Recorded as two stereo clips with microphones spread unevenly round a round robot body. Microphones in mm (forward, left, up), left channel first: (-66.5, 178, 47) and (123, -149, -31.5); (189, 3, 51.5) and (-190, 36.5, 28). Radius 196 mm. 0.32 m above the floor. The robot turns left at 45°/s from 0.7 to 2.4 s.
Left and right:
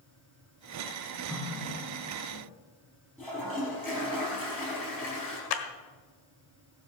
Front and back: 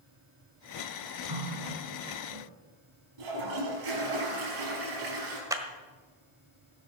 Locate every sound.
1.3 s a running tap: 150° right, 2.5 m; by 2.5 s 160° left, 2.5 m
3.2 s a toilet flushing: 155° right, 5 m
5.5 s a clap: 100° left, 1.5 m